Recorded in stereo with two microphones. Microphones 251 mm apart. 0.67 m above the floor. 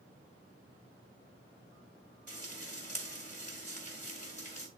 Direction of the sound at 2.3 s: 30° left (ahead or behind).